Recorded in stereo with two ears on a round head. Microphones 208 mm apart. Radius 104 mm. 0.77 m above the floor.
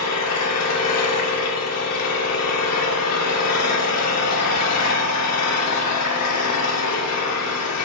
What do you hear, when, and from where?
0.0 s an engine running: 80° left, 1.3 m